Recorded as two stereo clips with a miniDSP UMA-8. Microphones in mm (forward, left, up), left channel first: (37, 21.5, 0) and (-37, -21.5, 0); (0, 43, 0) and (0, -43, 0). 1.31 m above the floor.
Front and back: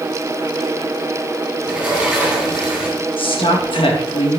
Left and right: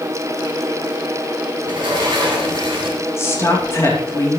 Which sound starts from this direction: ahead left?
A woman speaking, at 3.2 s.